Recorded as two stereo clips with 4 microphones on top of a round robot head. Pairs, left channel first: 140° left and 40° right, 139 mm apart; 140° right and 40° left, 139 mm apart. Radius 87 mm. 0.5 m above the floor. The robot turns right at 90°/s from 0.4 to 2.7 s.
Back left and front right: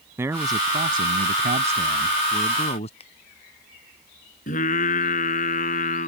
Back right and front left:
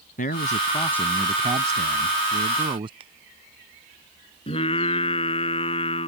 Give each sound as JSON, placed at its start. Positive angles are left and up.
{"t": 0.2, "sound": "a man speaking", "azimuth_deg": -115}
{"t": 3.0, "sound": "a finger snap", "azimuth_deg": 90}
{"t": 4.5, "sound": "singing", "azimuth_deg": 170}